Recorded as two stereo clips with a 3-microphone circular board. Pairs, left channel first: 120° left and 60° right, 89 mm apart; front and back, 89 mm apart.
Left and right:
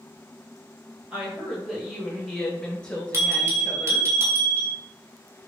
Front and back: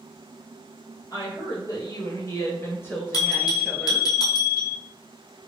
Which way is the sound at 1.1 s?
15° left.